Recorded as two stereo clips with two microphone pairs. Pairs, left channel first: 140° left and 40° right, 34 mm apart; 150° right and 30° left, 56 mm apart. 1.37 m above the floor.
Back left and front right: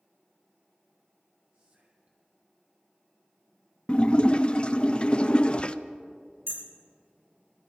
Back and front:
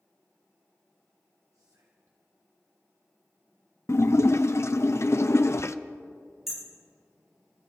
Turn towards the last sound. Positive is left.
turn(degrees=-55)